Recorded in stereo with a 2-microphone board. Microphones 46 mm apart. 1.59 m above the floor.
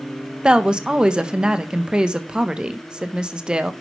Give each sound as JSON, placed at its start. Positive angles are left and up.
{"t": 0.4, "sound": "a woman speaking", "side_deg": -20, "distance_m": 1.3}